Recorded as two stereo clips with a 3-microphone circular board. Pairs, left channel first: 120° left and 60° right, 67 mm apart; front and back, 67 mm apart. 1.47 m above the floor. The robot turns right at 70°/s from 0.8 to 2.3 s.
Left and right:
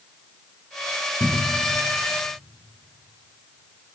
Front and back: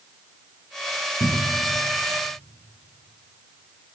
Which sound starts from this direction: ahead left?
A cupboard door, at 1.2 s.